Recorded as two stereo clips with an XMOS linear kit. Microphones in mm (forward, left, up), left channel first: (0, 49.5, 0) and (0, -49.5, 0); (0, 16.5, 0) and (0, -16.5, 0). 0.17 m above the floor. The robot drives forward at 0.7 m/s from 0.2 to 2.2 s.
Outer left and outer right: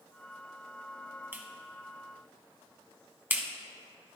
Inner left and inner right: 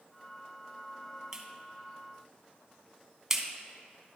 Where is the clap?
20° right (ahead or behind), 0.8 m; by 3.5 s 15° right (ahead or behind), 0.9 m.